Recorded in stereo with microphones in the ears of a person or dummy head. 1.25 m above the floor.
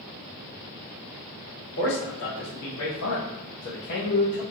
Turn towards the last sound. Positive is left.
turn(degrees=20)  # may be behind; listen again after turning